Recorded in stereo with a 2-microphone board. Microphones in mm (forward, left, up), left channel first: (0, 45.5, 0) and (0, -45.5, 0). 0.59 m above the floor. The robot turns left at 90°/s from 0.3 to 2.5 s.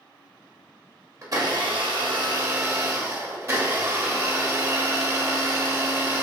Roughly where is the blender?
Ahead right.